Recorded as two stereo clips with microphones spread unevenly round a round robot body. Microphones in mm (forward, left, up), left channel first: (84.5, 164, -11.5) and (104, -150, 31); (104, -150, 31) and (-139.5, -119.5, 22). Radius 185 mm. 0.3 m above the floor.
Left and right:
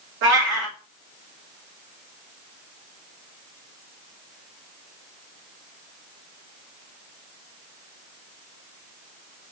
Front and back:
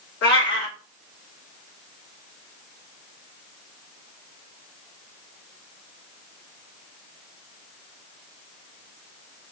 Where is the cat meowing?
35° right, 2.5 m.